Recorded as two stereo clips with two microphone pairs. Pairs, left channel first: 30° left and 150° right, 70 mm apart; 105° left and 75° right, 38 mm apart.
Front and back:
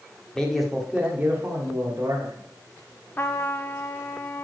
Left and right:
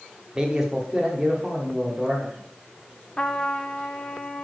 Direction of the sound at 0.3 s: 30° right.